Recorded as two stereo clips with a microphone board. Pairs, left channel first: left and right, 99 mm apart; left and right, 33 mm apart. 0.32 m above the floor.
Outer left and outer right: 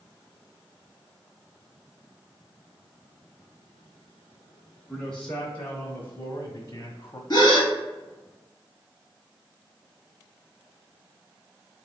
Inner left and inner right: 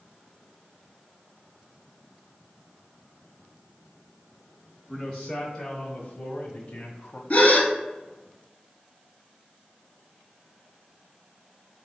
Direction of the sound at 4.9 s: 5° left (ahead or behind).